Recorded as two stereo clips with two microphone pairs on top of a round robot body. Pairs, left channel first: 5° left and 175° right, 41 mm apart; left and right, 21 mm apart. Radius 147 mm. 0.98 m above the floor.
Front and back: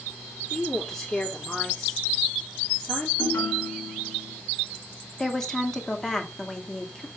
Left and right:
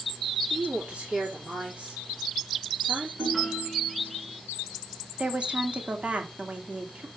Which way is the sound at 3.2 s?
5° right.